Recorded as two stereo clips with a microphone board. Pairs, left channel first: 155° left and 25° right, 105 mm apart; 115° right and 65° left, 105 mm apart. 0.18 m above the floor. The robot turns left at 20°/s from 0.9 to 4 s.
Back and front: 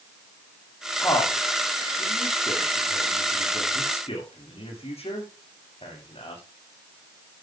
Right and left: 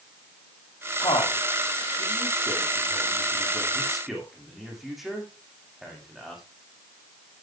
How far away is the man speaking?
About 8.5 m.